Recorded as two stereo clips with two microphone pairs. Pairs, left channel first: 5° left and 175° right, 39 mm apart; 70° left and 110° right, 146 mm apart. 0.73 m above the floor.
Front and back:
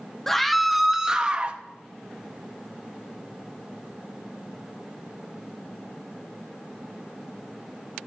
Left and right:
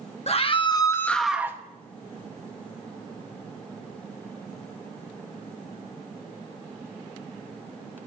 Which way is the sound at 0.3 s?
85° left.